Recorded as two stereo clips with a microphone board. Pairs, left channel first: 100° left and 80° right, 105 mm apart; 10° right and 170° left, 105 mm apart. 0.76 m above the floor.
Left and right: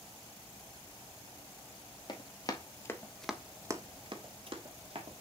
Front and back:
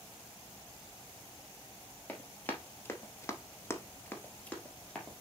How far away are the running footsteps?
About 1.5 m.